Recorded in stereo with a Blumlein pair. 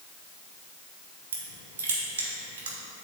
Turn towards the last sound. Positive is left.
turn(degrees=-60)